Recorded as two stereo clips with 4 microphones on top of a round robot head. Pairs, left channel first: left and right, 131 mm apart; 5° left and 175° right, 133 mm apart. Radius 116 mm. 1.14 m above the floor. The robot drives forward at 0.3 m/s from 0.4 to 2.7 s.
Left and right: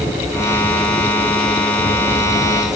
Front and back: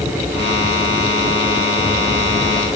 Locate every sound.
Only background noise.